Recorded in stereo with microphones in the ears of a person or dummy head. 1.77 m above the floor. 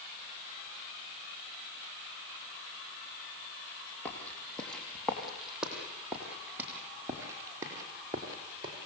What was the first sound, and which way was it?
Footsteps, 10° left (ahead or behind).